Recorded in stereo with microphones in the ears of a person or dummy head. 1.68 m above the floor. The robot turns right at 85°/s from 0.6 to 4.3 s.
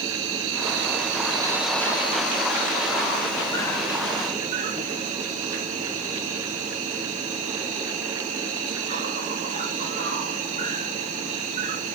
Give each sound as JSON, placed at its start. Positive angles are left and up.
{"t": 0.0, "sound": "an insect", "azimuth_deg": -90, "distance_m": 1.7}